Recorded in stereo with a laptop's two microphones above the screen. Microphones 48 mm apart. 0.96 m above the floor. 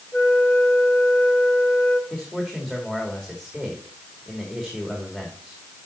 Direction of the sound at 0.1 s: 55° left (ahead or behind).